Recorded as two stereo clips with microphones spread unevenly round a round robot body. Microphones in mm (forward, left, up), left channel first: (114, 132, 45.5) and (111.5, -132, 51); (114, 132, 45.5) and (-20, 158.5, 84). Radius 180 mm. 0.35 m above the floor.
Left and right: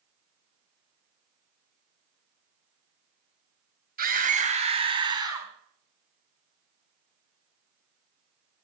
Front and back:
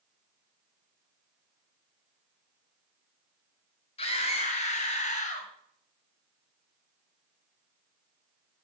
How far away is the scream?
About 3 m.